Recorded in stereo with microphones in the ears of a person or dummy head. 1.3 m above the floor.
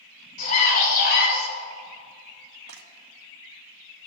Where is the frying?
75° right (ahead or behind), 1.2 m.